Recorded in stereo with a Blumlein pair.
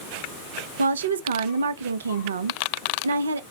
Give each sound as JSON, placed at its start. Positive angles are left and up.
{"t": 0.8, "sound": "a woman speaking", "azimuth_deg": -70, "distance_m": 0.6}